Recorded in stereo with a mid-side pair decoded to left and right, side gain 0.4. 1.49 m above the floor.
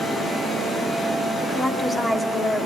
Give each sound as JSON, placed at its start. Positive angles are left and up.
{"t": 1.4, "sound": "a woman speaking", "azimuth_deg": 30, "distance_m": 4.5}